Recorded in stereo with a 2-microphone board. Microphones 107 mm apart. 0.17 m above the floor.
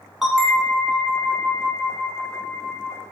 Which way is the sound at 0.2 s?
5° right (ahead or behind).